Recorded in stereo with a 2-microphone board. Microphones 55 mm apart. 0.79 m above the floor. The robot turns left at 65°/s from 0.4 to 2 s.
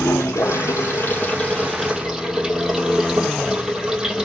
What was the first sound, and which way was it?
Running water, 90° left.